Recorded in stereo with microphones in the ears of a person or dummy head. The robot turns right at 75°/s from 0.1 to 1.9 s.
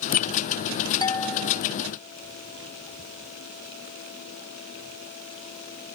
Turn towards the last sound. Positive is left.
turn(degrees=-140)